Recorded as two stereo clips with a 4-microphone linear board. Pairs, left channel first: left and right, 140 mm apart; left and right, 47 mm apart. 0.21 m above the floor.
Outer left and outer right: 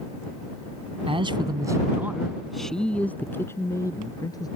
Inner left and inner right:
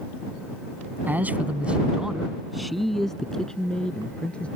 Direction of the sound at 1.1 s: 40° right (ahead or behind).